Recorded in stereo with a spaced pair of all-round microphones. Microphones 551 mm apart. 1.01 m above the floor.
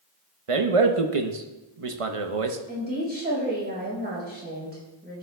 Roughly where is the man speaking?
Right.